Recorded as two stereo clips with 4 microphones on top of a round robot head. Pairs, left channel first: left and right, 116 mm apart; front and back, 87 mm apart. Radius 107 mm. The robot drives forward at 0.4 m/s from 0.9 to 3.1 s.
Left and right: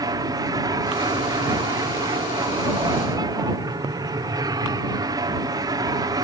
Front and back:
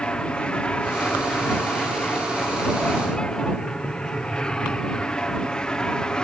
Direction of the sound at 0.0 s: 70° right.